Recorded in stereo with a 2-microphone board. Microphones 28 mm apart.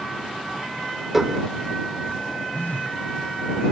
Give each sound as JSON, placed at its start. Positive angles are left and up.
{"t": 1.1, "sound": "dishes clattering", "side_deg": -10}
{"t": 2.5, "sound": "a phone buzzing", "side_deg": 80}